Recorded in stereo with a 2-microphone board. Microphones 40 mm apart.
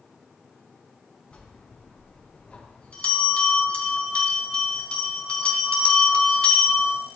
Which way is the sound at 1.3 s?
30° left (ahead or behind).